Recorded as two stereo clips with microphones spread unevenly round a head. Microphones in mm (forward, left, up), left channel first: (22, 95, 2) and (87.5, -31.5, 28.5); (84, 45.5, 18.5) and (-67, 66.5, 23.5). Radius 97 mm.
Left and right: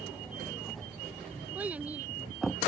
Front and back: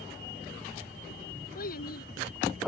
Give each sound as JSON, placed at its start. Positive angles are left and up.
{"t": 1.6, "sound": "a child speaking", "azimuth_deg": 15}